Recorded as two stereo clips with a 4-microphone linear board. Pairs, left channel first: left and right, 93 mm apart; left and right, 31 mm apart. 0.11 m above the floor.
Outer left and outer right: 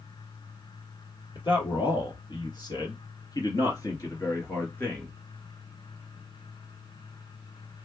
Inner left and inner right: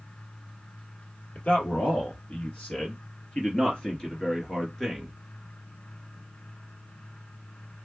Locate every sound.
1.4 s a man speaking: 60° left (ahead or behind), 3 m; by 5.1 s 15° left (ahead or behind), 1.8 m